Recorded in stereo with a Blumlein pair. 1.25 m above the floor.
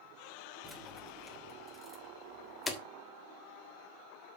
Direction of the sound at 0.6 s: Straight ahead.